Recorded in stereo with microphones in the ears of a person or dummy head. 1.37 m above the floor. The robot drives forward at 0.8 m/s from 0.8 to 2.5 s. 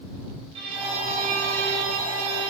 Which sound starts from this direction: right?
A violin, at 0.6 s.